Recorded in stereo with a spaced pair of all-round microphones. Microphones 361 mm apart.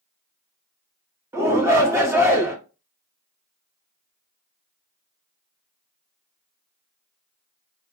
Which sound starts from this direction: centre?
A shout, at 1.3 s.